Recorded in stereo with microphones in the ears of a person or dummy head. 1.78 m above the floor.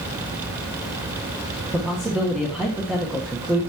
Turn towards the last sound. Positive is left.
turn(degrees=-5)  # may be behind; listen again after turning